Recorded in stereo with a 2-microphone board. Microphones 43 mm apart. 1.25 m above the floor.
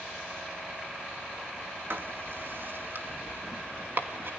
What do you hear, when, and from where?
1.9 s writing: 55° right (ahead or behind), 2.5 m